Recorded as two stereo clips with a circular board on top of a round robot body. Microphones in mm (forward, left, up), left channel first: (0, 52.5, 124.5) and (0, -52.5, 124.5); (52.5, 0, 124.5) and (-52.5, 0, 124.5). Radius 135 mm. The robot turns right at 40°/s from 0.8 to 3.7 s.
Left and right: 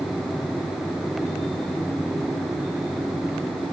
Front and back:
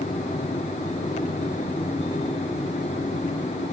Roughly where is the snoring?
I don't hear snoring.